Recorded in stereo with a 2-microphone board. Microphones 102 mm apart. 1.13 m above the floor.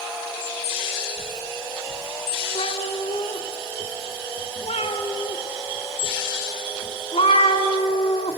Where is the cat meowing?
70° left (ahead or behind), 1.6 m.